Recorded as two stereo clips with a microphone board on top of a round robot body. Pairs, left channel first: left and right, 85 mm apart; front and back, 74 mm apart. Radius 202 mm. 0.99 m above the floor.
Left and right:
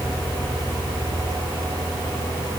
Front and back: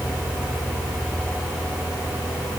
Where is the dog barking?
I don't hear a dog barking.